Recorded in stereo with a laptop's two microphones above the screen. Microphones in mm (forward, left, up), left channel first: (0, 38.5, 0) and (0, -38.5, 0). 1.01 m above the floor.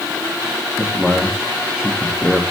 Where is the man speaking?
10° right (ahead or behind), 0.9 m.